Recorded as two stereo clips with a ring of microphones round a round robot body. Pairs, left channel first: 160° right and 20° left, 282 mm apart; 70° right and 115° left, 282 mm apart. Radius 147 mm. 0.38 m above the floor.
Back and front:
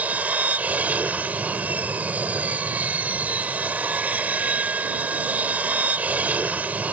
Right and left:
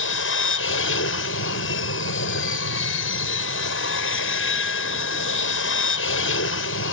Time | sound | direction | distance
0.0 | an aircraft | 60° right | ?